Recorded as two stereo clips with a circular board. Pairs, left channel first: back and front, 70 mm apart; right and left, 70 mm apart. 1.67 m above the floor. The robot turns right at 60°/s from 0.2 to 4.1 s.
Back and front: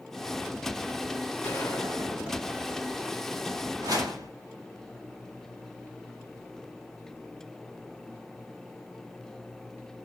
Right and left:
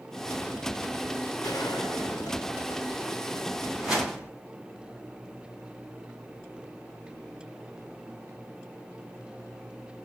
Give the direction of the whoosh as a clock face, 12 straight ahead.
12 o'clock.